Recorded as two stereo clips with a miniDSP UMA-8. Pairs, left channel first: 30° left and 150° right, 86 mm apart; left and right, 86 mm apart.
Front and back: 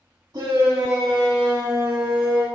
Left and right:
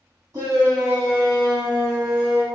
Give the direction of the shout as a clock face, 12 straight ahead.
4 o'clock.